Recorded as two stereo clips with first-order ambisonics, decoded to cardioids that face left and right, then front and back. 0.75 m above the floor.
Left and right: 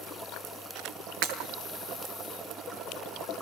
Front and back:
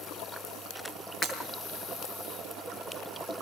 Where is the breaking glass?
75° right, 6 m.